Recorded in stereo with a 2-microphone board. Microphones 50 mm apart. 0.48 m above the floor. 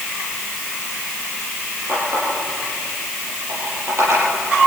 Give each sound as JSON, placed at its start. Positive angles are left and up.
{"t": 1.9, "sound": "a running tap", "side_deg": -65, "distance_m": 10.0}